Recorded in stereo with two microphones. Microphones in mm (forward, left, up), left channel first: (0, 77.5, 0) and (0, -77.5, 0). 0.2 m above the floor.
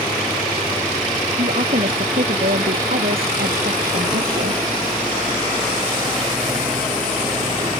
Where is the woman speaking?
65° right (ahead or behind); by 4.6 s 75° right (ahead or behind).